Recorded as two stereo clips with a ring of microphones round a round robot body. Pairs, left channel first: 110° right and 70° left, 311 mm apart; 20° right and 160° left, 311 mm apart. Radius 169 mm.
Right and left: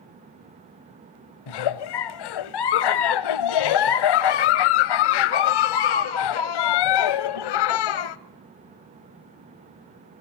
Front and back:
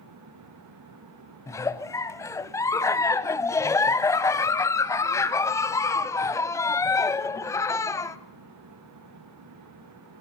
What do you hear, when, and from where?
1.5 s a giggle: 105° right, 0.8 m